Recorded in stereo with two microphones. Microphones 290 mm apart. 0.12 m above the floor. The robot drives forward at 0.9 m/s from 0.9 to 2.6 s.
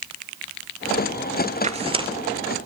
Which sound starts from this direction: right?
Tearing paper, at 1.6 s.